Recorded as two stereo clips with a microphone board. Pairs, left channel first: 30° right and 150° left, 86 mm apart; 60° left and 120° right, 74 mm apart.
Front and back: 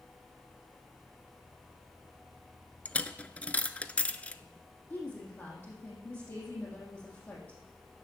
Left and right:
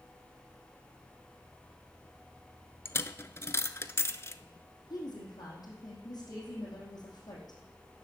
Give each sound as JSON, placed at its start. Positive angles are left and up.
{"t": 2.9, "sound": "a dropped coin", "azimuth_deg": 35, "distance_m": 0.5}
{"t": 4.9, "sound": "a woman speaking", "azimuth_deg": 35, "distance_m": 4.0}